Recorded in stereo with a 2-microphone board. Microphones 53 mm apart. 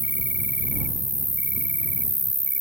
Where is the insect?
35° right (ahead or behind).